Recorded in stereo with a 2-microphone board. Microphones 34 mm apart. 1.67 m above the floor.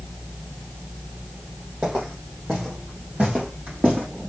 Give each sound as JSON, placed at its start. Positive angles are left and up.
{"t": 1.8, "sound": "footsteps", "side_deg": -35, "distance_m": 3.0}